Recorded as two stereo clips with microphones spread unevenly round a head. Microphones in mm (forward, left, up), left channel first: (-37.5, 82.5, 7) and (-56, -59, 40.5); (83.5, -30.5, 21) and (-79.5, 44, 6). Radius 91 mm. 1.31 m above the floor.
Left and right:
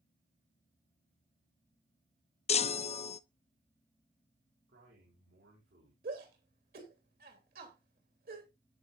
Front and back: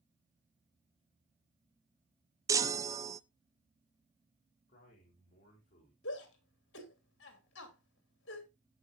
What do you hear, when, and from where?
2.5 s a chime: 90° left, 0.6 m
4.7 s a man speaking: 75° right, 5 m
6.0 s a shout: 55° right, 3 m